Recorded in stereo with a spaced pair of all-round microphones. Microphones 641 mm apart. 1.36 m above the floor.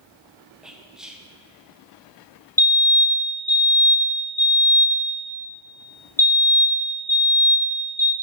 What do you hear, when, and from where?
0.6 s whispering: centre (ahead or behind), 0.6 m
2.6 s a fire alarm: 5° left (ahead or behind), 1.5 m